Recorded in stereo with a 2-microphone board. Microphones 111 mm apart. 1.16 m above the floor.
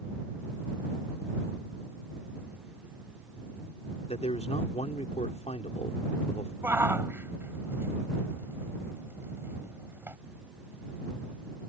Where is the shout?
20° right (ahead or behind).